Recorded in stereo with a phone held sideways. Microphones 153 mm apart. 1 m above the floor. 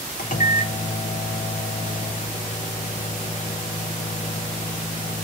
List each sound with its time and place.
0.2 s a microwave: 70° left (ahead or behind), 0.5 m